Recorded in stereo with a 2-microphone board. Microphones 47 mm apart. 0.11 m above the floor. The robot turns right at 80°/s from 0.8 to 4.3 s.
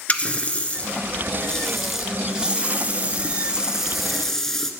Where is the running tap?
25° left (ahead or behind), 1.1 m; by 4.7 s 5° left (ahead or behind), 1.1 m.